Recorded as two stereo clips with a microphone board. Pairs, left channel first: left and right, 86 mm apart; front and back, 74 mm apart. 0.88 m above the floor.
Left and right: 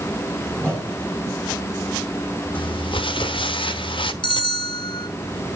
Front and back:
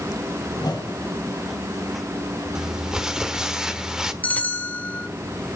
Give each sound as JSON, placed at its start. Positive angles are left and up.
{"t": 0.5, "sound": "a whoosh", "azimuth_deg": 15, "distance_m": 5.5}
{"t": 2.5, "sound": "crumpling", "azimuth_deg": 100, "distance_m": 1.1}
{"t": 4.2, "sound": "a bell", "azimuth_deg": 70, "distance_m": 1.4}